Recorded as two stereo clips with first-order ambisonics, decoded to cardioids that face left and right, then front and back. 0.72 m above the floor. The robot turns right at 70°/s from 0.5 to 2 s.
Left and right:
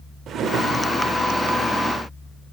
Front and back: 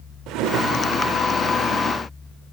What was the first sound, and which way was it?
A drawer, 145° right.